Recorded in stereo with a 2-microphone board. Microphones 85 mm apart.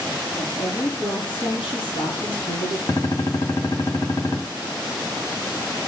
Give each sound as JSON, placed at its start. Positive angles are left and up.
{"t": 0.4, "sound": "a woman speaking", "side_deg": 80, "distance_m": 6.0}
{"t": 2.9, "sound": "a gunshot", "side_deg": 50, "distance_m": 1.7}